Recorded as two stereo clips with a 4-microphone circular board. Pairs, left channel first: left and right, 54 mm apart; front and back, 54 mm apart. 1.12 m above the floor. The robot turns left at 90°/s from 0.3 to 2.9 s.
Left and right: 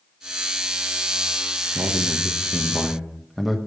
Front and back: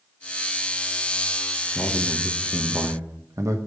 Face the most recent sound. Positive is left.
turn(degrees=-175)